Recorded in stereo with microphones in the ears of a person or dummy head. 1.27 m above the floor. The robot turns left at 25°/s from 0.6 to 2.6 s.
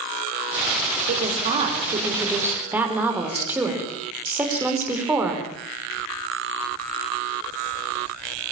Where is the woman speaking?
130° right, 5.5 m; by 5.5 s 170° right, 5.5 m.